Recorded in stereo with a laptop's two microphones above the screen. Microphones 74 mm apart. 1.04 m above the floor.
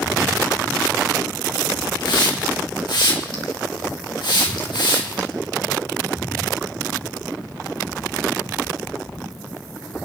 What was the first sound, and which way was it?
A hiss, 75° left (ahead or behind).